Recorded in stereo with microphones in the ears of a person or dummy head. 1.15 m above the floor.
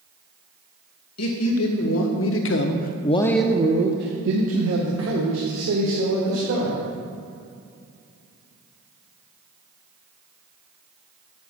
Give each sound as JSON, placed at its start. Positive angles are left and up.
{"t": 1.2, "sound": "a man speaking", "side_deg": 75, "distance_m": 1.6}